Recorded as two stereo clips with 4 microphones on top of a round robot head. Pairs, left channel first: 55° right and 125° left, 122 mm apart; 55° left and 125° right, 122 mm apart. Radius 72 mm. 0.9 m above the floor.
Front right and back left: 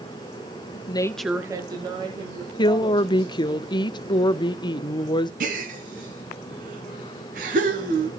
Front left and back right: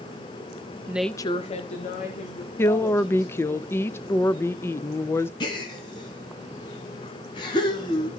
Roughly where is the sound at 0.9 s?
Ahead right.